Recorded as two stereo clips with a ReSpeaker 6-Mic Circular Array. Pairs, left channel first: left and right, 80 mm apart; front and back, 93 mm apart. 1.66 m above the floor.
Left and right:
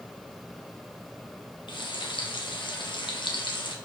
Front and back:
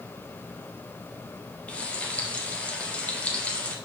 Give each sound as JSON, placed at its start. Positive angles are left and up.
{"t": 1.7, "sound": "frying", "azimuth_deg": 75, "distance_m": 1.0}